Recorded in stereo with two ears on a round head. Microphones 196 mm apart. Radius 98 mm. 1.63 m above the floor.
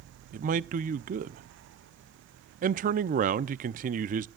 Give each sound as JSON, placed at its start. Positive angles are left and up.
{"t": 0.3, "sound": "a man speaking", "side_deg": -40, "distance_m": 0.5}